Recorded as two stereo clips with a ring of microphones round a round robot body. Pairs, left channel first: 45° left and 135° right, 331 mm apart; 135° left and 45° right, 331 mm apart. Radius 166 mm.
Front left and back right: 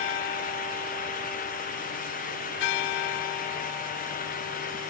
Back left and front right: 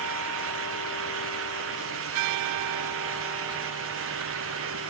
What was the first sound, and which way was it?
Only background noise.